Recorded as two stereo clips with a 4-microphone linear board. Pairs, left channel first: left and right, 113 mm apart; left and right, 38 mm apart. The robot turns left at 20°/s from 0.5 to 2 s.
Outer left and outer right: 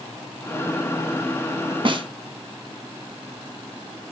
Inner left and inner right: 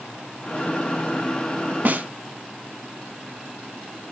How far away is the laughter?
I don't hear laughter.